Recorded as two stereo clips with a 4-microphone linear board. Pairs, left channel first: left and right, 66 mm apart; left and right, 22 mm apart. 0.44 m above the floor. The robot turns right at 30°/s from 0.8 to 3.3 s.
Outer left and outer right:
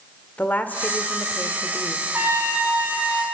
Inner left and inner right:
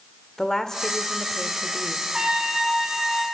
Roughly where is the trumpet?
Ahead right.